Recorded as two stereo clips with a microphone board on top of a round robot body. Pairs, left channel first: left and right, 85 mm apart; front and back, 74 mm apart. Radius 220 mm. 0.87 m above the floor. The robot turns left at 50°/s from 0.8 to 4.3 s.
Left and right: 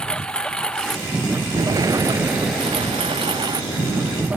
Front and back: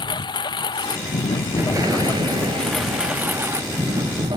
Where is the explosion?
130° right; by 4.3 s 95° left.